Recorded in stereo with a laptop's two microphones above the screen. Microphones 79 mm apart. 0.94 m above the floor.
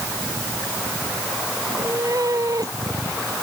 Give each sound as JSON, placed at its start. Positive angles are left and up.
{"t": 1.6, "sound": "a cat meowing", "side_deg": -45}